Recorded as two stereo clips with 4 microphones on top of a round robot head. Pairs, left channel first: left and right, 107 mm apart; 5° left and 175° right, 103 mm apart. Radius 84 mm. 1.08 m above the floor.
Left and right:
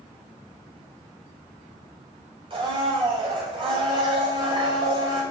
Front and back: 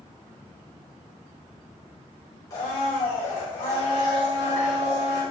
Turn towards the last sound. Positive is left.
turn(degrees=-55)